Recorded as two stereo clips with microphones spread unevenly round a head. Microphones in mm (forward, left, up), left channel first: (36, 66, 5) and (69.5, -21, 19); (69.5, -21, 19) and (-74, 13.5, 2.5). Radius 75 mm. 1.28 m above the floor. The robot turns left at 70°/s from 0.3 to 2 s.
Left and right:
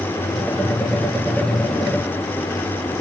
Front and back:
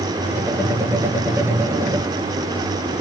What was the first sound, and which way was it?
Only background noise.